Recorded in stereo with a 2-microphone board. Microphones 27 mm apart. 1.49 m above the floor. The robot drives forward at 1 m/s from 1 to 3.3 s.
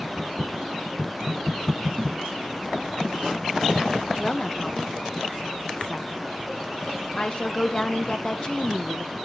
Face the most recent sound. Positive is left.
turn(degrees=35)  # may be behind; listen again after turning